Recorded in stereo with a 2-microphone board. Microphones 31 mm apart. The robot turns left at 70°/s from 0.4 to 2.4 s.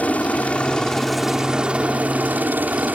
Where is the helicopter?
55° left; by 3.0 s 85° right.